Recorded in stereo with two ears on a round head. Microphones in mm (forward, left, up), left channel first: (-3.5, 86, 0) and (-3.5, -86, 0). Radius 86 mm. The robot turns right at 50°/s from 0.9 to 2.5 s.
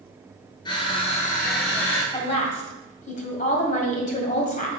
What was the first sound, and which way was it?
Crushing, 25° left.